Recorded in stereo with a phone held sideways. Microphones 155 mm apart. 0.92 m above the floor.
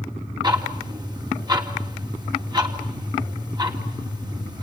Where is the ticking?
30° right (ahead or behind), 3 m.